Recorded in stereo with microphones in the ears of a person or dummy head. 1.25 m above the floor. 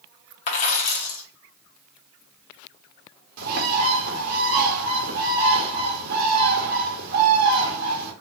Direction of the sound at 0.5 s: 35° left (ahead or behind).